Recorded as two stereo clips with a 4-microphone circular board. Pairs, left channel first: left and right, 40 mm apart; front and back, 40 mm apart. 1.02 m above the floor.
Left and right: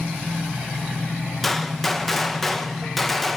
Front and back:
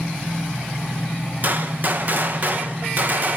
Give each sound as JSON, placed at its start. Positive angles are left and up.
{"t": 1.4, "sound": "a gunshot", "azimuth_deg": 175, "distance_m": 0.8}